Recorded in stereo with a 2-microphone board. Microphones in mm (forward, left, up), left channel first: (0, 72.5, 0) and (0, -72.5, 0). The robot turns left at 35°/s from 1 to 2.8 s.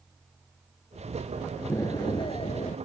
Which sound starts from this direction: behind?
An explosion, at 1.7 s.